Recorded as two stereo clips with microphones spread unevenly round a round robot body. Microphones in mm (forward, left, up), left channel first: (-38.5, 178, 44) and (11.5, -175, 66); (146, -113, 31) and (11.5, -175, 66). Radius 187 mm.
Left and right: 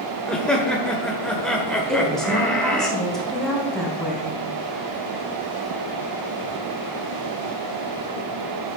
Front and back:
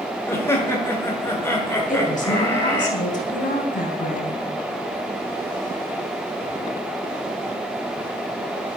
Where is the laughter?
20° left, 1.5 m.